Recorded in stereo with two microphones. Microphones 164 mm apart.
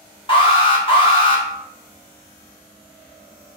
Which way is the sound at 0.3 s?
30° left (ahead or behind).